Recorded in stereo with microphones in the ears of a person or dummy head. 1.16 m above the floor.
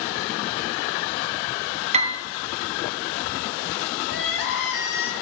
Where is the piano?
30° right (ahead or behind), 0.6 m.